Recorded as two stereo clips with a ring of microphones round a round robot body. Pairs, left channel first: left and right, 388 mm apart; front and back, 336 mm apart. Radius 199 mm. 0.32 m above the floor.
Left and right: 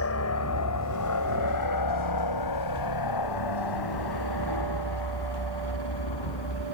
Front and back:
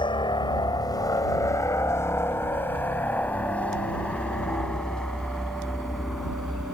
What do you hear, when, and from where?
0.0 s a helicopter: 70° left; by 6.7 s 90° left